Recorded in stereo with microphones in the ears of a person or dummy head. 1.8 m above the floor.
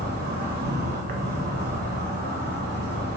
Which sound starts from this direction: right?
An insect, at 0.0 s.